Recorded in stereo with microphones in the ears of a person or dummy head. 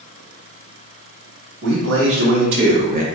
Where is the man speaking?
70° right (ahead or behind), 1.4 m; by 3.0 s 45° right (ahead or behind), 0.8 m.